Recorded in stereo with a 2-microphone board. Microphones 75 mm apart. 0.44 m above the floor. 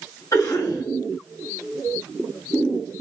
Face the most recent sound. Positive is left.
turn(degrees=55)  # may be behind; listen again after turning